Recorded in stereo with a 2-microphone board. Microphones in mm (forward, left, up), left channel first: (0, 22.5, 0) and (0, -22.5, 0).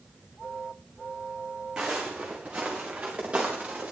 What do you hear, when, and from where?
1.8 s footsteps: 15° right (ahead or behind), 2.5 m; by 3.9 s 25° right (ahead or behind), 4 m